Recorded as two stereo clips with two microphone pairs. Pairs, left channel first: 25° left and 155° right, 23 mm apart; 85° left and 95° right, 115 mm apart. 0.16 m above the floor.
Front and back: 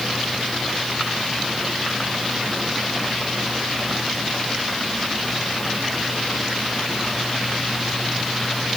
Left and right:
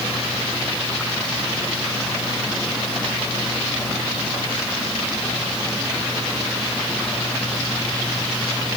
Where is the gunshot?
I don't hear a gunshot.